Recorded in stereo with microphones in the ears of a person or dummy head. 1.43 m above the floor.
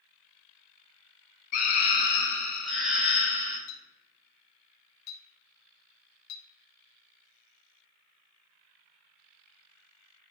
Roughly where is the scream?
Left.